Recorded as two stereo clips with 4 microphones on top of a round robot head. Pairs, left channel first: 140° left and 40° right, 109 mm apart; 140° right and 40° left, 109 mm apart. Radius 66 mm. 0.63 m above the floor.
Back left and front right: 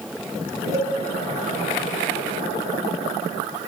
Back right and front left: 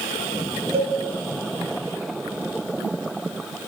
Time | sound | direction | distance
0.7 | a cowbell | 15° left | 2.5 m